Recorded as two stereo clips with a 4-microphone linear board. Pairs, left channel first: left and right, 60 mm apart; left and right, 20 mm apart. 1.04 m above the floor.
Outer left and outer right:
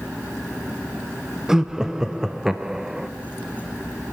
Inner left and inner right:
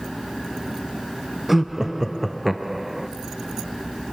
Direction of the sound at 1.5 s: 10° right (ahead or behind).